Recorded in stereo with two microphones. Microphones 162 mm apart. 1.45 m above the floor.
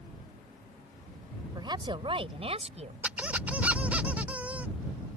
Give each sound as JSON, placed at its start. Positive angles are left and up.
{"t": 1.6, "sound": "a woman speaking", "side_deg": -25}
{"t": 3.0, "sound": "a squeak", "side_deg": -10}